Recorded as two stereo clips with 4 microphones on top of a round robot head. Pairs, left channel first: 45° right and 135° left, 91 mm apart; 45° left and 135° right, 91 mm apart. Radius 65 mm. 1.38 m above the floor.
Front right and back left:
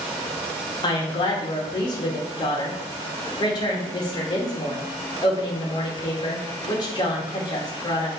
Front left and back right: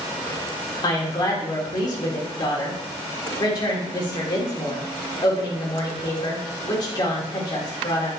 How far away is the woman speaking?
About 2.5 m.